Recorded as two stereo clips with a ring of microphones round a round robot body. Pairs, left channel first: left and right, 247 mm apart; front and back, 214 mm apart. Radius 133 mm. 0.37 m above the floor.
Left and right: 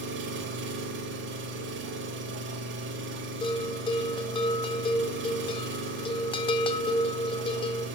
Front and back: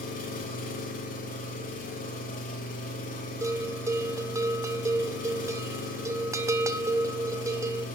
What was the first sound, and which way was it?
An engine running, 50° right.